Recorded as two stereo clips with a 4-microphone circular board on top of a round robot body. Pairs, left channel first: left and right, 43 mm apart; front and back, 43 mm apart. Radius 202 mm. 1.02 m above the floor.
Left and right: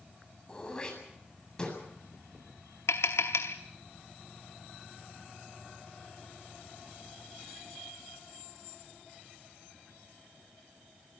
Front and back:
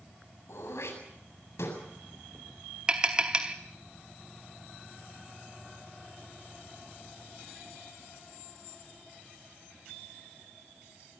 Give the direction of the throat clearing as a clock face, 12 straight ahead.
11 o'clock.